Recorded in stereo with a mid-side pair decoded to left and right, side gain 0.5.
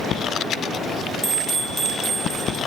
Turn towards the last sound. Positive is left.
turn(degrees=0)